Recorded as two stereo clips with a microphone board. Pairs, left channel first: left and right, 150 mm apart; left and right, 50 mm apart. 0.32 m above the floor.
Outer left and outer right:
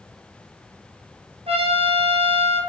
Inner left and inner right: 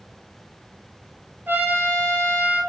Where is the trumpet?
45° right (ahead or behind), 1.1 m.